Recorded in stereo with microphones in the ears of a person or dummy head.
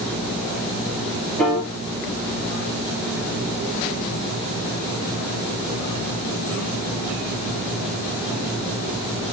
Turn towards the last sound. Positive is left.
turn(degrees=5)  # may be behind; listen again after turning